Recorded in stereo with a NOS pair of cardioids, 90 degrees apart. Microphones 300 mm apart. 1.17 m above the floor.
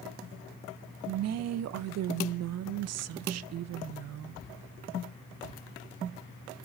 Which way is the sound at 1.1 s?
60° right.